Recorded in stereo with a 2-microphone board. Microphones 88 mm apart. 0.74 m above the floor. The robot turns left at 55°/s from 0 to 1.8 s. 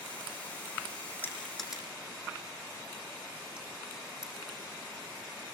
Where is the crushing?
20° left (ahead or behind), 6.5 m; by 4.3 s 10° right (ahead or behind), 6.5 m.